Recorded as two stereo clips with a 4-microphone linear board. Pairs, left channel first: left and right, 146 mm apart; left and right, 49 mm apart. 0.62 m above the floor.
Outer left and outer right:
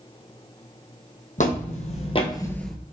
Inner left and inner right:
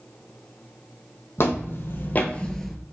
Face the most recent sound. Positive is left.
turn(degrees=-5)  # may be behind; listen again after turning